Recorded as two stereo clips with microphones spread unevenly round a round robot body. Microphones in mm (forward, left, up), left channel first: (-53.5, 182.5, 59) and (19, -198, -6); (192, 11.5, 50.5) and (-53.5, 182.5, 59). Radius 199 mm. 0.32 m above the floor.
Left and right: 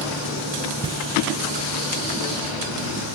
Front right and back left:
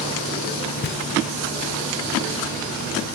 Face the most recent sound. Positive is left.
turn(degrees=-30)